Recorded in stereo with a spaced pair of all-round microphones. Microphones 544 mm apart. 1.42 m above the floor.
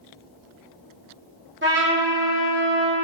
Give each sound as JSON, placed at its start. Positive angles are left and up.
{"t": 1.6, "sound": "a trumpet", "side_deg": -20, "distance_m": 1.6}